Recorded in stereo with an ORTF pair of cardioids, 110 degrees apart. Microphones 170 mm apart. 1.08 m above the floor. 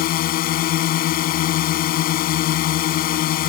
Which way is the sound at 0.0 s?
65° left.